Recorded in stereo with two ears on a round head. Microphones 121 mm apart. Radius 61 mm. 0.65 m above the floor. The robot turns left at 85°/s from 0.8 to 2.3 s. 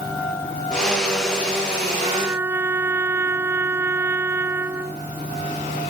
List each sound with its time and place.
2.0 s a trumpet: 40° right (ahead or behind); by 5.0 s 15° right (ahead or behind)